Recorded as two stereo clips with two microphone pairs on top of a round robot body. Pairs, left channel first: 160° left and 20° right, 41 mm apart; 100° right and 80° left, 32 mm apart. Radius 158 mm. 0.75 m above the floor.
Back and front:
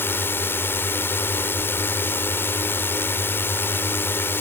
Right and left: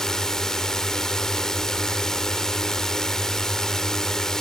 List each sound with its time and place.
0.0 s a drone: straight behind